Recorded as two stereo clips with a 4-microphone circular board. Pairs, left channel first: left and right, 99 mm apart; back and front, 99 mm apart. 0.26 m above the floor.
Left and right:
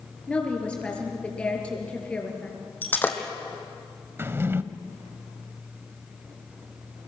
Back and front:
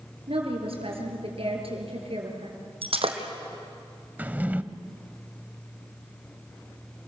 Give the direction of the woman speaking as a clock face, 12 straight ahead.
12 o'clock.